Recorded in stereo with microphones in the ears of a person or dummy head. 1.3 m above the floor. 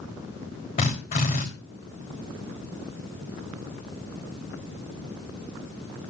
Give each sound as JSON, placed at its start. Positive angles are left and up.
{"t": 0.8, "sound": "a drill", "side_deg": 40, "distance_m": 3.0}